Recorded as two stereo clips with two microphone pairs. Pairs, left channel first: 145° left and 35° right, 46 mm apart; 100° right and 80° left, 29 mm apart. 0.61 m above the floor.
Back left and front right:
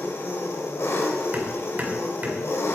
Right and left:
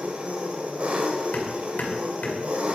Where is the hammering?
90° right, 2 m.